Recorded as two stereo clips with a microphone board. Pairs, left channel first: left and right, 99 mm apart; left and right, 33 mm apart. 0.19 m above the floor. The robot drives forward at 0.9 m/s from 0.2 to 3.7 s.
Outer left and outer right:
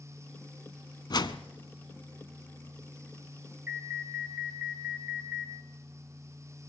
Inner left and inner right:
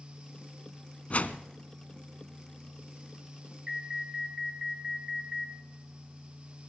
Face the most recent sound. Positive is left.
turn(degrees=-20)  # may be behind; listen again after turning